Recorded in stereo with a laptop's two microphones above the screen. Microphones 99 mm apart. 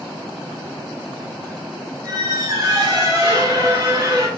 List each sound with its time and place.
2.0 s a squeak: 40° right (ahead or behind), 1.9 m